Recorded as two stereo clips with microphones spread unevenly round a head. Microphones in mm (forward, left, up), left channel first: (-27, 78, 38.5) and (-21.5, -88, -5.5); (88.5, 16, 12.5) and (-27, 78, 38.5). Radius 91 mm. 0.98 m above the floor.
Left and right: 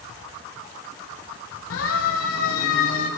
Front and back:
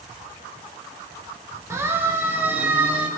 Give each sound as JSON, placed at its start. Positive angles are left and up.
{"t": 1.7, "sound": "a siren", "azimuth_deg": 80, "distance_m": 5.5}